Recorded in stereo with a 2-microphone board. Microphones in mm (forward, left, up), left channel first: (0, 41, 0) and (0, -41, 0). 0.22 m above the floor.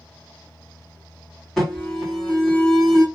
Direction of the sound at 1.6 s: Centre (ahead or behind).